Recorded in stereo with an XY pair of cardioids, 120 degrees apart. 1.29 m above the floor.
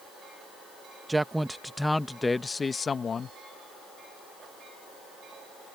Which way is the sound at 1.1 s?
15° right.